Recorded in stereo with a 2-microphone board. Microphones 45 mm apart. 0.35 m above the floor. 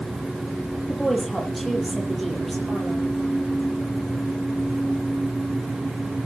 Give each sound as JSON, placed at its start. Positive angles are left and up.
{"t": 0.9, "sound": "a woman speaking", "side_deg": 5, "distance_m": 7.5}